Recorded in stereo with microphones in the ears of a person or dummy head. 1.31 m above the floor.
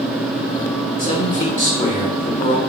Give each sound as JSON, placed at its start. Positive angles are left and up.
{"t": 1.0, "sound": "a man speaking", "side_deg": 35, "distance_m": 0.9}